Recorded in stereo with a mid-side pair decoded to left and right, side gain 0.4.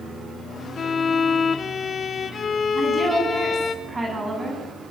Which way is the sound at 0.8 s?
50° left.